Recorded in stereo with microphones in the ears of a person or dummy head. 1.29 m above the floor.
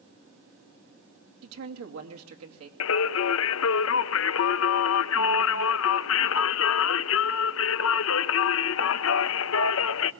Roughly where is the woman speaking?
Right.